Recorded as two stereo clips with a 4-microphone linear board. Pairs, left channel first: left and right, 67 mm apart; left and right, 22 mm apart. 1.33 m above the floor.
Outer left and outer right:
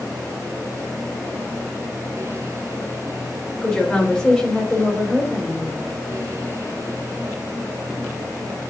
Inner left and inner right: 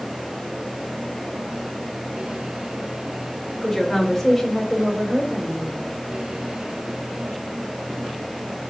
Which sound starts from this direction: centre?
A woman speaking, at 3.6 s.